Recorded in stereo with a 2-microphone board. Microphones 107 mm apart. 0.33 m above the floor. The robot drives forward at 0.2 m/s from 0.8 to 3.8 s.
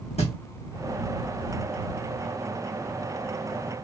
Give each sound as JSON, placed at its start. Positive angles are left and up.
{"t": 0.2, "sound": "a thud", "side_deg": 80, "distance_m": 2.5}